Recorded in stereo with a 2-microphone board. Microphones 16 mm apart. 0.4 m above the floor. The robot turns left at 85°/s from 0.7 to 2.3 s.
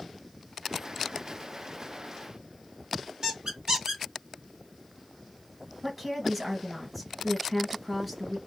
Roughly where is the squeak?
Right.